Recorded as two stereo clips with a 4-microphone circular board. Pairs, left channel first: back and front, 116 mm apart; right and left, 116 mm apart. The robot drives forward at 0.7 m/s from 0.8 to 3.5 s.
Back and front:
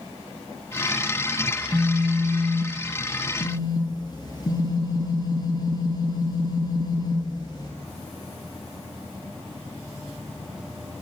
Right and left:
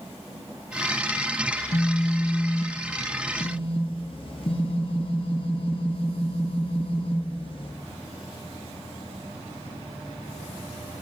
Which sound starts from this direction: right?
A phone buzzing, at 1.5 s.